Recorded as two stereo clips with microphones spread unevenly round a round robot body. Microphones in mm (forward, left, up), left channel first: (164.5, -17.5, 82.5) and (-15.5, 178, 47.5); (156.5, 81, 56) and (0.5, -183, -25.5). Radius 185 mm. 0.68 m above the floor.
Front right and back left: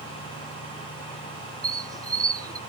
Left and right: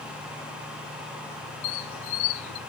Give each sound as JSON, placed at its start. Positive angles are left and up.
{"t": 1.6, "sound": "a squeak", "azimuth_deg": 60, "distance_m": 0.6}